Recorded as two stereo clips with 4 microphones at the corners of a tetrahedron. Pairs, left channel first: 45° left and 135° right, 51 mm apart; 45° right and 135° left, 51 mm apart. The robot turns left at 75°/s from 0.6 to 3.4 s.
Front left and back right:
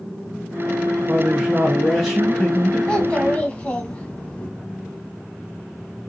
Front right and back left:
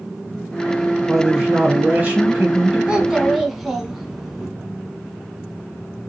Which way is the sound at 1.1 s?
150° right.